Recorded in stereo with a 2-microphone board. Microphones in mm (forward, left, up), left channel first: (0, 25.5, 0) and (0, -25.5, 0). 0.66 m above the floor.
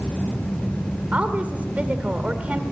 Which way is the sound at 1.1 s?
30° right (ahead or behind).